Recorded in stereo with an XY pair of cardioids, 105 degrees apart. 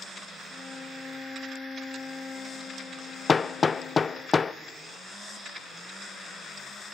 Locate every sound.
0.5 s a violin: 35° left, 1.5 m
3.3 s hammering: 30° left, 0.5 m